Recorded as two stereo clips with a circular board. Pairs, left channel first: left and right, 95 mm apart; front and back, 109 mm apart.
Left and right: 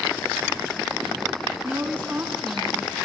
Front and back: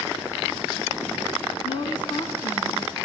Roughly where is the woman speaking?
Ahead right.